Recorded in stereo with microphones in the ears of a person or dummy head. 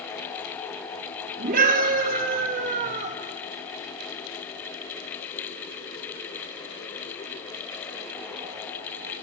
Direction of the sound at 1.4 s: 55° right (ahead or behind).